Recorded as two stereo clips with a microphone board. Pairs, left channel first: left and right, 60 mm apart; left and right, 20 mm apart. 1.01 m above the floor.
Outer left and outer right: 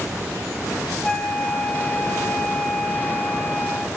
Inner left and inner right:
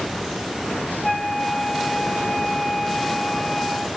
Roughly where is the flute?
Left.